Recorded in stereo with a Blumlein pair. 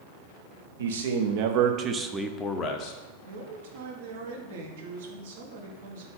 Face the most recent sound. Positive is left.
turn(degrees=-55)